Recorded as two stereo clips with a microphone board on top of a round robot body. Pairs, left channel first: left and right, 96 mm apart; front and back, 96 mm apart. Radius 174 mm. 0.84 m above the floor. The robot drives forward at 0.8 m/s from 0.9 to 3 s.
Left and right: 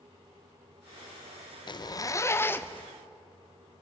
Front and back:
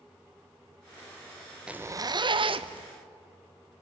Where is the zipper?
100° left, 0.5 m; by 2.9 s 160° left, 1.2 m.